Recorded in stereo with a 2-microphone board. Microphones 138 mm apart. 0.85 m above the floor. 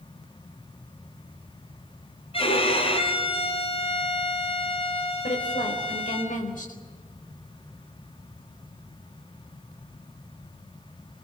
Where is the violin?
40° left (ahead or behind), 4 m.